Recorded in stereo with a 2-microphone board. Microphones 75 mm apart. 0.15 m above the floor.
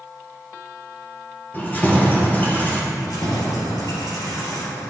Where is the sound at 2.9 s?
65° left (ahead or behind), 2.5 m.